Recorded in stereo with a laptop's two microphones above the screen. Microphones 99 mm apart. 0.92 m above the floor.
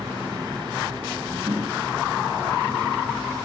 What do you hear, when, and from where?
0.0 s a fan: 55° right (ahead or behind), 3 m
1.5 s knocking: 20° right (ahead or behind), 3 m